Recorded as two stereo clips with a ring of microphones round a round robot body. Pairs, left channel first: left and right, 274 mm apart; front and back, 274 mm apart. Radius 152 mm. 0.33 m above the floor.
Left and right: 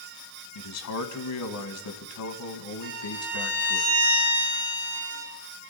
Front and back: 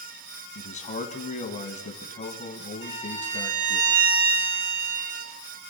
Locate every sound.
0.6 s a man speaking: 65° left, 2 m
2.8 s a violin: 165° right, 9 m